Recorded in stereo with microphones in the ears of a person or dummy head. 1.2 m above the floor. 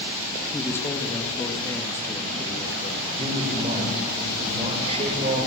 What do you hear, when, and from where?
0.5 s a man speaking: 10° left (ahead or behind), 2 m
3.2 s a man speaking: 30° right (ahead or behind), 5 m